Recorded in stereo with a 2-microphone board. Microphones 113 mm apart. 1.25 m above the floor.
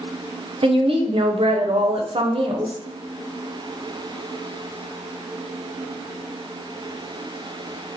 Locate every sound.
0.6 s a woman speaking: 55° right (ahead or behind), 0.6 m